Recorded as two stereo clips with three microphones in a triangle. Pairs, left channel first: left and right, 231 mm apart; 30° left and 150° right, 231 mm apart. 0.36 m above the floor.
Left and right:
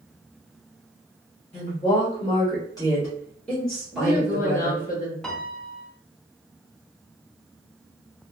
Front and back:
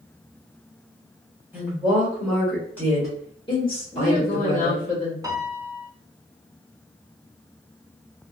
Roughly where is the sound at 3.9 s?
Ahead left.